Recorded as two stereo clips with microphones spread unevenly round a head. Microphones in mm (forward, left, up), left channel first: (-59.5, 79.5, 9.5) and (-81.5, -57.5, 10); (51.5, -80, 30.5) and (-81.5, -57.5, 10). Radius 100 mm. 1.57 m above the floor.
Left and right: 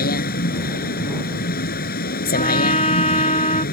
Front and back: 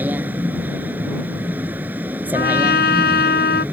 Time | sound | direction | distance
0.0 | a vehicle | 90° left | ?
2.3 | a trumpet | 15° left | ?